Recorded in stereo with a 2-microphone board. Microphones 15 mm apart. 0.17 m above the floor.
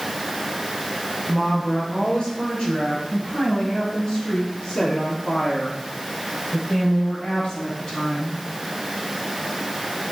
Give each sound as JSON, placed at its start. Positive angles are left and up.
{"t": 1.3, "sound": "a woman speaking", "side_deg": 65, "distance_m": 3.5}